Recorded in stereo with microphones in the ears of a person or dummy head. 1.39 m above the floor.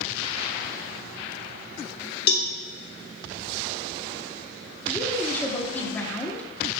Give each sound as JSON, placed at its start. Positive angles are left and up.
{"t": 2.3, "sound": "a cowbell", "side_deg": 55, "distance_m": 1.1}
{"t": 4.9, "sound": "a woman speaking", "side_deg": 10, "distance_m": 1.2}